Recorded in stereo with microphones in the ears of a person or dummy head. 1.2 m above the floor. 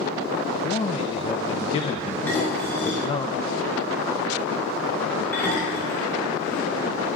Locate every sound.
0.5 s a man speaking: 25° left (ahead or behind), 0.9 m
2.3 s dishes clattering: 5° left (ahead or behind), 10 m